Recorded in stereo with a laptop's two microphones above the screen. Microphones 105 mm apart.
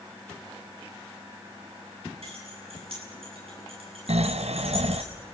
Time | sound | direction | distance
2.2 | keys jangling | 70° right (ahead or behind) | 8 m
4.1 | snoring | 85° right | 0.7 m